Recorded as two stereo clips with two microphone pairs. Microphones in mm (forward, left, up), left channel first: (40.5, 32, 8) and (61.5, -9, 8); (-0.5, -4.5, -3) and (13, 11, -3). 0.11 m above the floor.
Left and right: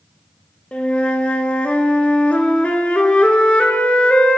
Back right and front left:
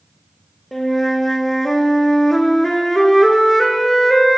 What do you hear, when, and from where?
0.7 s a flute: 160° left, 0.5 m